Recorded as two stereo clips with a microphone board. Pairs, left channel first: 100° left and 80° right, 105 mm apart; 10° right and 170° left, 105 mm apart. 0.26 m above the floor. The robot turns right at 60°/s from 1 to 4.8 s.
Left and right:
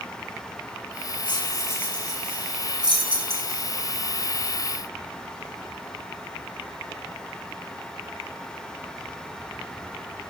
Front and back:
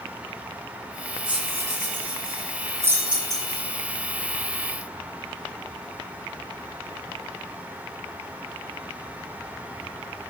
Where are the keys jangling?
140° left, 6.5 m; by 3.6 s 80° right, 6.5 m.